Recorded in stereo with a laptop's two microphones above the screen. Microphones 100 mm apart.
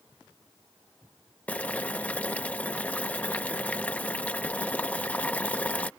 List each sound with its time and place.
1.5 s boiling: 15° left (ahead or behind)